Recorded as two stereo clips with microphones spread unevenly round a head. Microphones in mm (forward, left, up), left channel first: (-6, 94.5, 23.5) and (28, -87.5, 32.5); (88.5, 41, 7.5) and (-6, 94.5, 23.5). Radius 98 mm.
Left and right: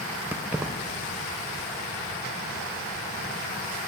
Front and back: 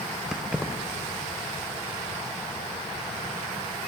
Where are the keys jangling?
145° right, 0.6 m.